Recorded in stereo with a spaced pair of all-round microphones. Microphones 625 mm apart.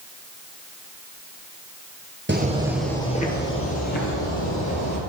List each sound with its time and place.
2.3 s footsteps: 15° right (ahead or behind), 1.6 m; by 5.0 s 35° left (ahead or behind), 3 m